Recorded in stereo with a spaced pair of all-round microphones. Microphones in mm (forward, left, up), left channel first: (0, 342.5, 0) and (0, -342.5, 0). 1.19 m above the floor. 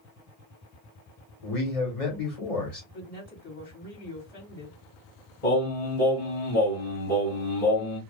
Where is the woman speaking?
60° left (ahead or behind), 1.6 m.